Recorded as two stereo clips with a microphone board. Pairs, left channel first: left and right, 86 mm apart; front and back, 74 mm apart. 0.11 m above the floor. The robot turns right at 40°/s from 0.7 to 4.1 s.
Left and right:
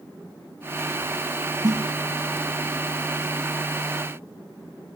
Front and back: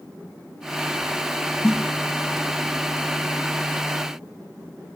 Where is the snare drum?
55° right, 5 m; by 1.8 s 45° right, 5 m.